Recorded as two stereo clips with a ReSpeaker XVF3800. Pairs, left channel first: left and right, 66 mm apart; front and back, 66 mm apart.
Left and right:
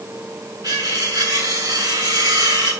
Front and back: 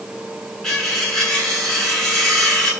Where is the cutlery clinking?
85° right, 8 m.